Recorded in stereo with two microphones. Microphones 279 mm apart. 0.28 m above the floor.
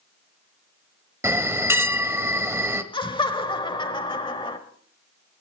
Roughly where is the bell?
Centre.